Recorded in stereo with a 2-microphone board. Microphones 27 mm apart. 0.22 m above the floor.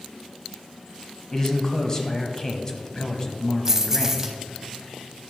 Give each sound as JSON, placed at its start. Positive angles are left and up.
{"t": 1.3, "sound": "a man speaking", "side_deg": 25, "distance_m": 1.0}
{"t": 3.6, "sound": "keys jangling", "side_deg": -20, "distance_m": 0.9}